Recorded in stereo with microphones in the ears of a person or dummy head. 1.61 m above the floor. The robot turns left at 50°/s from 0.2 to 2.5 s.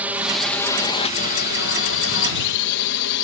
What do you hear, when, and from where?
0.0 s a drone: 10° right (ahead or behind); by 3.2 s 60° left (ahead or behind)